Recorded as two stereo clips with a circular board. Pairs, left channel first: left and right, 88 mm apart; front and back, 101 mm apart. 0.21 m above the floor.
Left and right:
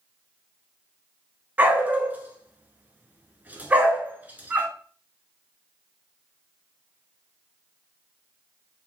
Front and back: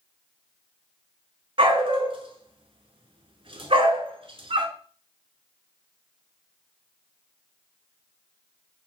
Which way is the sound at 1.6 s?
160° right.